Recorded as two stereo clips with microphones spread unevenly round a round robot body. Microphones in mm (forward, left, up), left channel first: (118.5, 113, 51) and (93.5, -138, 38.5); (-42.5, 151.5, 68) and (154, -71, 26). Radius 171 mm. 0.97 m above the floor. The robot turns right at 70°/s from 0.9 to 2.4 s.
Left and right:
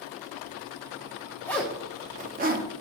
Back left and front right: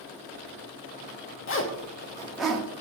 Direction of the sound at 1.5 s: 165° left.